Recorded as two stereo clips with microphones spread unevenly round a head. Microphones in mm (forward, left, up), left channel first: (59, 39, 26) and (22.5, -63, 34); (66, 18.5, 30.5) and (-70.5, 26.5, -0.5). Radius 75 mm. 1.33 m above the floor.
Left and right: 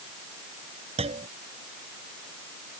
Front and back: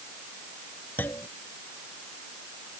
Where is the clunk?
80° right.